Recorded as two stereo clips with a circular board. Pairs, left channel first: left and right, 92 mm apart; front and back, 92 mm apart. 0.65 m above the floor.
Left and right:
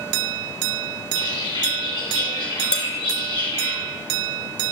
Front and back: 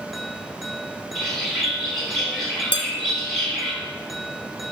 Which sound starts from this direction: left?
A bird, at 1.1 s.